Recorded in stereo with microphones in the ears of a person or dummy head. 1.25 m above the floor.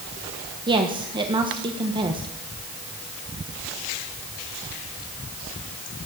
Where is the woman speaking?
25° right (ahead or behind), 1.3 m.